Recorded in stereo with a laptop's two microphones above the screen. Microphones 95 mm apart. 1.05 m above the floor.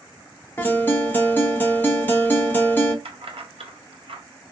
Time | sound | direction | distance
0.6 | a guitar | 20° left (ahead or behind) | 0.6 m
3.0 | keys jangling | 75° right (ahead or behind) | 0.5 m